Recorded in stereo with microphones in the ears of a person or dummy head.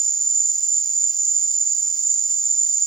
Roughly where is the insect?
Centre.